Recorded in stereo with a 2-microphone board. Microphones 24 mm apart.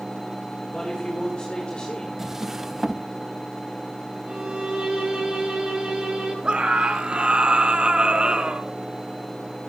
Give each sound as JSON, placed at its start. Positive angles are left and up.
{"t": 0.7, "sound": "a man speaking", "side_deg": 30, "distance_m": 6.5}
{"t": 2.2, "sound": "a drawer", "side_deg": -15, "distance_m": 0.9}
{"t": 4.3, "sound": "a violin", "side_deg": -50, "distance_m": 9.0}
{"t": 6.4, "sound": "a scream", "side_deg": -45, "distance_m": 3.5}